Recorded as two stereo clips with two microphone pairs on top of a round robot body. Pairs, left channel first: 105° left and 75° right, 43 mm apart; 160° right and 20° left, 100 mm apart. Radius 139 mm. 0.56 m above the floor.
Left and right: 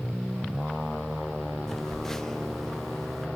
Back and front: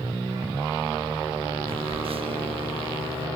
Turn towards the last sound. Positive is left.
turn(degrees=15)